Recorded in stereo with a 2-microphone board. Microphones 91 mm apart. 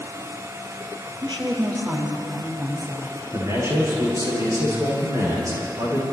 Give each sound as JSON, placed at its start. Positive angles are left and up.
{"t": 1.2, "sound": "a woman speaking", "side_deg": -55, "distance_m": 5.0}
{"t": 3.3, "sound": "a man speaking", "side_deg": -35, "distance_m": 9.5}